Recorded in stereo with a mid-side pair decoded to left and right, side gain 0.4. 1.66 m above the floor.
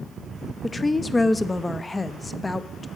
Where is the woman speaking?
25° left, 0.7 m.